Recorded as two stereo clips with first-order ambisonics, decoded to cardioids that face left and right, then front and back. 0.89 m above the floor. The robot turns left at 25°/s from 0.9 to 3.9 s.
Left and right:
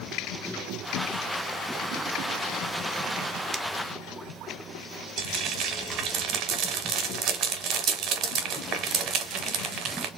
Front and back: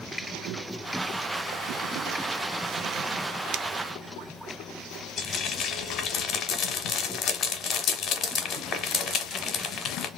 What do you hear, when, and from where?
3.5 s a finger snap: 170° right, 0.6 m; by 3.6 s 175° right, 0.6 m
5.2 s frying: 55° right, 1.2 m